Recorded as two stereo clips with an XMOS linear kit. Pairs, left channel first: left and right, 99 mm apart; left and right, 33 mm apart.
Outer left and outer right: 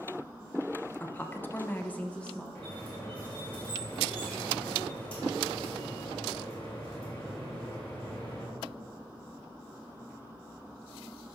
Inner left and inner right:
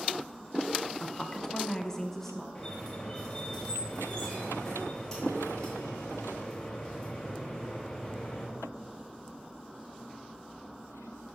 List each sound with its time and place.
1.0 s a woman speaking: 20° left (ahead or behind), 0.8 m; by 2.5 s 10° left (ahead or behind), 0.9 m
2.5 s a squeak: 15° left (ahead or behind), 3 m